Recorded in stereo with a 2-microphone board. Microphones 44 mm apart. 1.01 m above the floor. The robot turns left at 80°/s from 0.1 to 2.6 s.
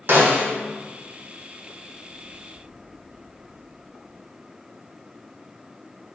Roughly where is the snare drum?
Behind right.